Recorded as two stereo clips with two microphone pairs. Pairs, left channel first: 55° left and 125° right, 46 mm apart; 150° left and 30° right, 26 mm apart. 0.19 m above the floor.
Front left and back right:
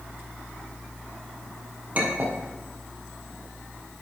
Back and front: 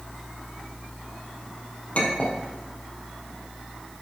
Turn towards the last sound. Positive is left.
turn(degrees=-175)